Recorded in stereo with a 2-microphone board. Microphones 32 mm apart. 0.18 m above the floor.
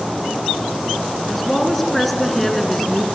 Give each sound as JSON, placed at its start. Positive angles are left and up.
{"t": 1.3, "sound": "a woman speaking", "side_deg": 5, "distance_m": 2.0}